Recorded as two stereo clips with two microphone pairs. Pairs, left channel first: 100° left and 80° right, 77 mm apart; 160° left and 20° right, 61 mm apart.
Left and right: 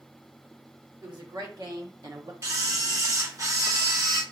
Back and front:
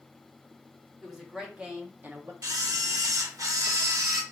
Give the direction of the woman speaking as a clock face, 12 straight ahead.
4 o'clock.